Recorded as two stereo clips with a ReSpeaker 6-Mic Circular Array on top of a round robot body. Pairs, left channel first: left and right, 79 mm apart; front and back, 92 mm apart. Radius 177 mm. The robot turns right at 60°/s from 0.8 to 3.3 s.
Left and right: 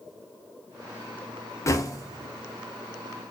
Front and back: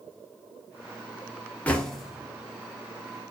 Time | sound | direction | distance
1.7 | knocking | 70° left | 0.9 m